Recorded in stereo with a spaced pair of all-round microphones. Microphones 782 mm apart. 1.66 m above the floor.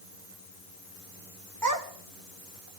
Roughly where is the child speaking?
Right.